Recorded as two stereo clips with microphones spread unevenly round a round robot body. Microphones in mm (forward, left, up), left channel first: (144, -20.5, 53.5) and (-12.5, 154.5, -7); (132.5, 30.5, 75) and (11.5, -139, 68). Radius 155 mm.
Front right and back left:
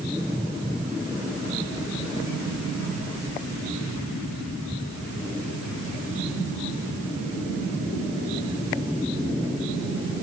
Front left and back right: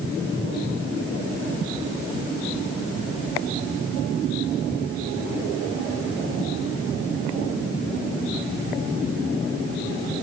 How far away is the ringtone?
No ringtone in this recording.